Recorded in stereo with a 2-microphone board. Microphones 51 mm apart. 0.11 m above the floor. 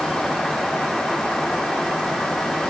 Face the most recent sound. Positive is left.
No sound to turn to.